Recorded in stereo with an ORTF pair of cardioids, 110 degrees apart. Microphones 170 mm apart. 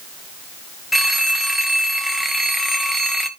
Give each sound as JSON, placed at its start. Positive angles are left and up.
{"t": 0.9, "sound": "a phone ringing", "azimuth_deg": 0, "distance_m": 0.9}